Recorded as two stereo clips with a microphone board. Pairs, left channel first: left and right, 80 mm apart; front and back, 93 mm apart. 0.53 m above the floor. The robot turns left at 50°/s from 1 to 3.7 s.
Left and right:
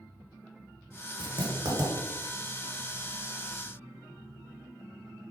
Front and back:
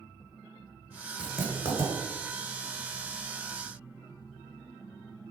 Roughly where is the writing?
Right.